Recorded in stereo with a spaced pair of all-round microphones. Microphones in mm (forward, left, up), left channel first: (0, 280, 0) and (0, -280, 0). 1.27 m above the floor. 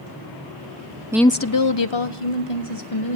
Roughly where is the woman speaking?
Centre.